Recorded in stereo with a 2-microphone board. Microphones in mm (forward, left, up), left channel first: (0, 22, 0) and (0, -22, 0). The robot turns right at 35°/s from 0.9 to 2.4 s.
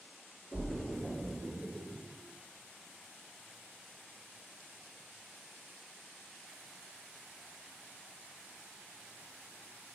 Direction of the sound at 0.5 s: Centre (ahead or behind).